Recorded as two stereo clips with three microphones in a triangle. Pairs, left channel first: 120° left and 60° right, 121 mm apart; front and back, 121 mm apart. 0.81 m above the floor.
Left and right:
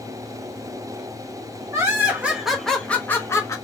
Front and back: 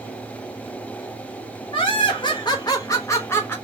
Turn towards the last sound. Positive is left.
turn(degrees=65)